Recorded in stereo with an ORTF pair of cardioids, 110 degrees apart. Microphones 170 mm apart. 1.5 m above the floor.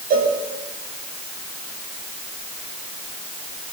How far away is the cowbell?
About 7 m.